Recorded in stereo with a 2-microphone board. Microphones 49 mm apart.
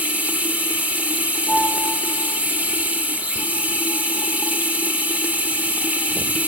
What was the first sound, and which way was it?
Running water, 30° right (ahead or behind).